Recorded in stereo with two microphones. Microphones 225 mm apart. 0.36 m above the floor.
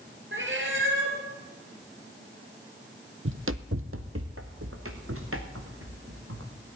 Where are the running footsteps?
70° right (ahead or behind), 0.7 m; by 6.5 s 80° right, 3 m.